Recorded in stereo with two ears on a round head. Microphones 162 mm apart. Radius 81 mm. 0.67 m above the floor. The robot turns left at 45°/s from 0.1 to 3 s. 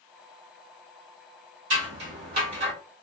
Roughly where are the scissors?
Right.